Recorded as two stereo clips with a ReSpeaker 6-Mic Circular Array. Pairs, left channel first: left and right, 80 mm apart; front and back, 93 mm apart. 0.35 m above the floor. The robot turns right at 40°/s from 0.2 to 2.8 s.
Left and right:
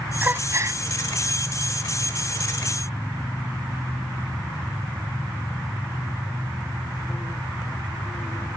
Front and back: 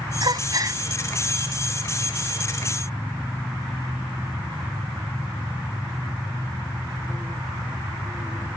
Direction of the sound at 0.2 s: 155° right.